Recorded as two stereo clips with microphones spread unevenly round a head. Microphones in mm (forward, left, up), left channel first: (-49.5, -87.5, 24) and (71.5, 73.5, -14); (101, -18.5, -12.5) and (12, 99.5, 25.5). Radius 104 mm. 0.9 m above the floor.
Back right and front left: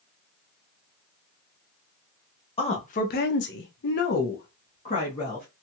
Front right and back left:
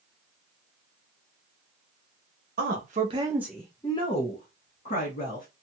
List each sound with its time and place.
2.6 s a woman speaking: 165° left, 0.9 m; by 5.5 s 60° right, 1.6 m